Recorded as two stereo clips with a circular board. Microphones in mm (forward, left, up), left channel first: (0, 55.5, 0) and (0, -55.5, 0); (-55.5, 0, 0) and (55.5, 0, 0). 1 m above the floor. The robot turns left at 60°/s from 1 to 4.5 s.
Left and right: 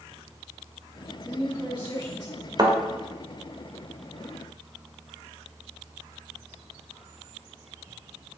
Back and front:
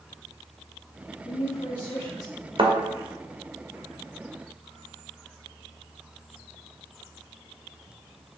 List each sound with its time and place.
1.2 s a woman speaking: 165° left, 2.5 m; by 2.5 s 90° left, 2.5 m
2.6 s a thud: 40° right, 1.9 m; by 2.7 s 45° right, 1.9 m